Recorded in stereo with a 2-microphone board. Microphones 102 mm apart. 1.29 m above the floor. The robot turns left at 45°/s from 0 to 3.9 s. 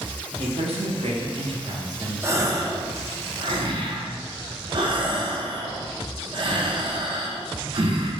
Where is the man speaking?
70° right, 0.7 m; by 2.9 s straight behind, 0.7 m.